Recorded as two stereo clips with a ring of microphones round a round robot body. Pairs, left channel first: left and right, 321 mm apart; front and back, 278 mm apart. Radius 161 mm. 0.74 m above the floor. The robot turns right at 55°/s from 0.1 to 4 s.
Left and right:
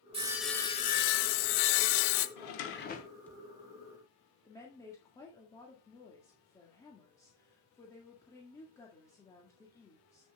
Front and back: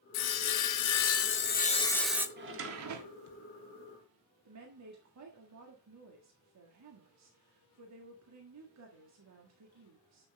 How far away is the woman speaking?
About 1.7 m.